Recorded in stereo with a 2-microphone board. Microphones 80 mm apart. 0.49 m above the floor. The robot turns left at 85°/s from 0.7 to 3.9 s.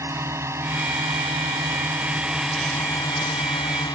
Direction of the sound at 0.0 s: 35° right (ahead or behind).